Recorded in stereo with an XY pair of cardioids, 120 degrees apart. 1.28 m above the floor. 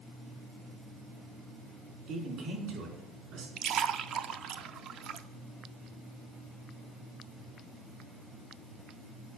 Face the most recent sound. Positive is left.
turn(degrees=-60)